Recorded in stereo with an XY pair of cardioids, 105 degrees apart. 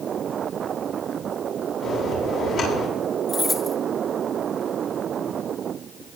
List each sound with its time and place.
1.8 s a bell: 65° left, 8.5 m
3.3 s keys jangling: 35° left, 2.5 m